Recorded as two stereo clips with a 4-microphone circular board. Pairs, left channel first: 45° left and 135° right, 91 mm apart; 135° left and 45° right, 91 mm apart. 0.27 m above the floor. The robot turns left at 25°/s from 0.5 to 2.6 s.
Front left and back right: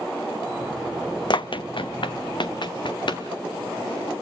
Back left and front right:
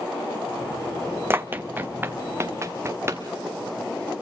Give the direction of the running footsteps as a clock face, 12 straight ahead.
11 o'clock.